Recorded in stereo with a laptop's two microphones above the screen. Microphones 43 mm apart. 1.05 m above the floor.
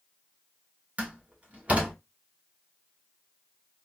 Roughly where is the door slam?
Right.